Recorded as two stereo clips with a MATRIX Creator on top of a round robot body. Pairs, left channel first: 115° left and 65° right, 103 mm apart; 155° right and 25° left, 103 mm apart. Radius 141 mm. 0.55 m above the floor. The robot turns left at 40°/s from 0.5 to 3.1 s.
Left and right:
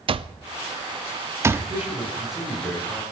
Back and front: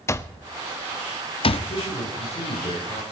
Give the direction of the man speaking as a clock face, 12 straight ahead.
4 o'clock.